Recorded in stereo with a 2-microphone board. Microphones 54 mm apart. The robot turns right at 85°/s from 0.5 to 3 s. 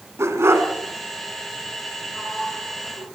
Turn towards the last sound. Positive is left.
turn(degrees=70)